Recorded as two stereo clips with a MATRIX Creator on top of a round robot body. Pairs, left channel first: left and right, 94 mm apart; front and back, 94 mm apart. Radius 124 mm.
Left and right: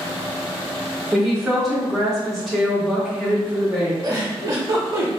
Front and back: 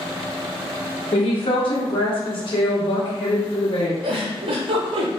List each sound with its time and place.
1.1 s a woman speaking: straight ahead, 1.2 m
4.0 s a giggle: 150° right, 0.5 m